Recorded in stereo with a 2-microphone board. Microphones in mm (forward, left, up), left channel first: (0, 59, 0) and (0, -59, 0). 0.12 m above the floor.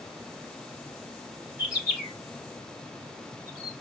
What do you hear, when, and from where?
1.6 s a bird: 15° right (ahead or behind), 1.7 m